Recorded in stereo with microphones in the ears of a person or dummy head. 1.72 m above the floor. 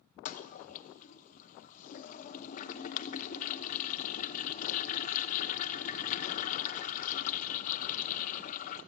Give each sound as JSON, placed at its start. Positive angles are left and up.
{"t": 0.2, "sound": "a toilet flushing", "side_deg": 50, "distance_m": 0.9}